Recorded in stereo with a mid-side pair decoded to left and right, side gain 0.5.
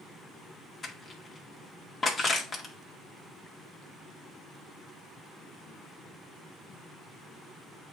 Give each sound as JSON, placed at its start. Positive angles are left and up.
{"t": 0.8, "sound": "crushing", "azimuth_deg": 35, "distance_m": 1.8}